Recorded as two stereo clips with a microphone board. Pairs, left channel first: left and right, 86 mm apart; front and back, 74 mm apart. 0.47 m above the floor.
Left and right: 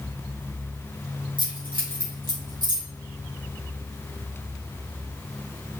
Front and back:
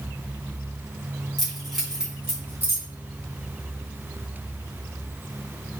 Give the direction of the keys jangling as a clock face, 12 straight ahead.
3 o'clock.